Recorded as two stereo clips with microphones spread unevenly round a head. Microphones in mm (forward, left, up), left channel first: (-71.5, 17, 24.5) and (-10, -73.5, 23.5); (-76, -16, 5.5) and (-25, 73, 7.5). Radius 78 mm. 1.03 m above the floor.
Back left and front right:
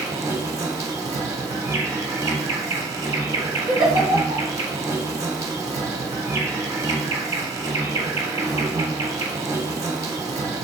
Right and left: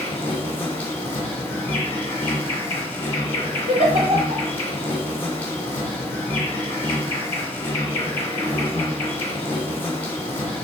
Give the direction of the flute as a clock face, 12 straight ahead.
No flute in this recording.